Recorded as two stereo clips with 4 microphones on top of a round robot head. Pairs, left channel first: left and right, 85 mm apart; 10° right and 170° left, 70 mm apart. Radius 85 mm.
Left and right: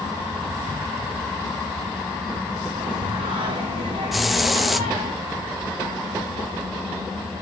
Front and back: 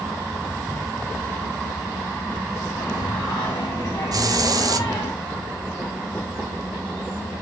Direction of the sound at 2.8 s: 75° right.